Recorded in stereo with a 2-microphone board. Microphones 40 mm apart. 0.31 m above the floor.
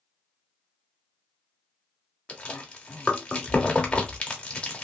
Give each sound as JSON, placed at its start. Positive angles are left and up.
{"t": 2.3, "sound": "chewing", "side_deg": 25, "distance_m": 0.9}